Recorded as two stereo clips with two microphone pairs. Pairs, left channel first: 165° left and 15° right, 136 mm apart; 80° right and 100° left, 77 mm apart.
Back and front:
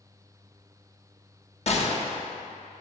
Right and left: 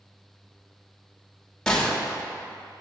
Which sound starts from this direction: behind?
A gunshot, at 1.7 s.